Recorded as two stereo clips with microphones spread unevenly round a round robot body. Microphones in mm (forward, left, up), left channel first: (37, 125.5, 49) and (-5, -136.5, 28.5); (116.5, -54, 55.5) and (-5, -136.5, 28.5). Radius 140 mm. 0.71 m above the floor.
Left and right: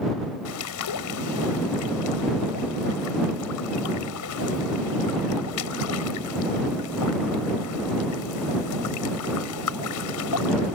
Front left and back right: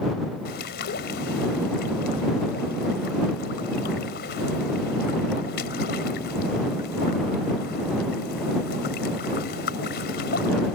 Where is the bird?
65° left.